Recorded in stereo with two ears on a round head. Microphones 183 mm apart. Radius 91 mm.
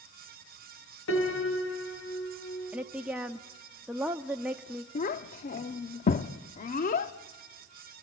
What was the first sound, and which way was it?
A piano, 70° left (ahead or behind).